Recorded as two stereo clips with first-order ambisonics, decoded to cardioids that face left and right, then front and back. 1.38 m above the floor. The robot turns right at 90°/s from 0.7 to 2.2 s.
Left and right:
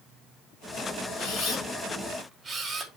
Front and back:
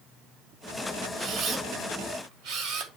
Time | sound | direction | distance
1.2 | a camera shutter | 105° left | 1.6 m